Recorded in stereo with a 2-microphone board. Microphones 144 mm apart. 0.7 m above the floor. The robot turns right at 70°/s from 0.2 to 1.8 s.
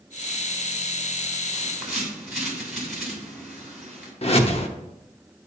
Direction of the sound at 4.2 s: 45° left (ahead or behind).